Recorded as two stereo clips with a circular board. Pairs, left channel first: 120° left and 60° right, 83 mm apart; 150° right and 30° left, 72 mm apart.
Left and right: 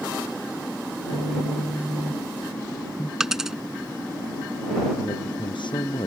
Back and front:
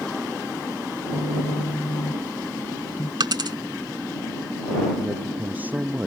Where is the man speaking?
95° left.